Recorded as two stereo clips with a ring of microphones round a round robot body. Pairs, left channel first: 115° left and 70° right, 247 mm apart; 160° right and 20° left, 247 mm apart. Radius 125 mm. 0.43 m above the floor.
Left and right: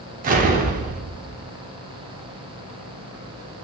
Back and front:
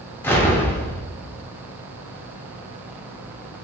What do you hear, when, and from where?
0.2 s an explosion: 85° right, 0.5 m